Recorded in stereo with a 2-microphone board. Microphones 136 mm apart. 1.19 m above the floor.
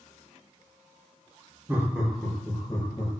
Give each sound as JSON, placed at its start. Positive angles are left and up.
{"t": 1.7, "sound": "laughter", "side_deg": -20, "distance_m": 0.7}